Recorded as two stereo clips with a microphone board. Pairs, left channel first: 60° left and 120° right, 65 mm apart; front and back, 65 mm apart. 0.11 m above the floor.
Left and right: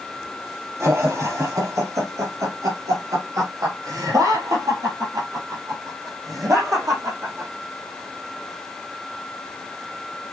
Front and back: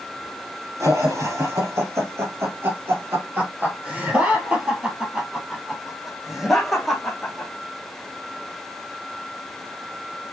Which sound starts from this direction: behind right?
Laughter, at 0.8 s.